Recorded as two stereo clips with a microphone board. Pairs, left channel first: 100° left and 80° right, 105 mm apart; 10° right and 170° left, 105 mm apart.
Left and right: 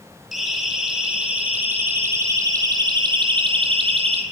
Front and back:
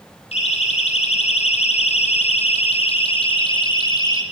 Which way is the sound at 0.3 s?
10° left.